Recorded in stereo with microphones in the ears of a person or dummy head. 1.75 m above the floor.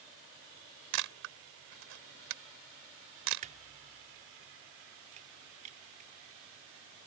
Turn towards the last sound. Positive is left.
turn(degrees=-40)  # may be behind; listen again after turning